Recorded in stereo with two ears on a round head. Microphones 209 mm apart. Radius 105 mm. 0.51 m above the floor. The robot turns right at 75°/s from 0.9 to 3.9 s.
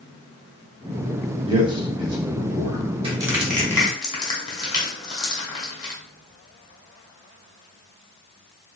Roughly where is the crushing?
Right.